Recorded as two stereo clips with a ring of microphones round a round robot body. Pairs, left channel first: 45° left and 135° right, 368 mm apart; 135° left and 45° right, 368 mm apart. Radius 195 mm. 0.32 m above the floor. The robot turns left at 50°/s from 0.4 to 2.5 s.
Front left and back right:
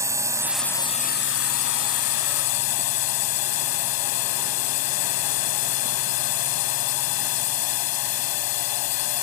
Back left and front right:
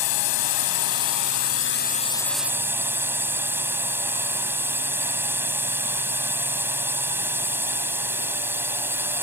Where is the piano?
No piano in this recording.